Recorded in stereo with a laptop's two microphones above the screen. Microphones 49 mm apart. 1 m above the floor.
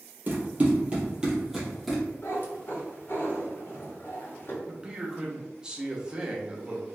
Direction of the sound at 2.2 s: 50° left (ahead or behind).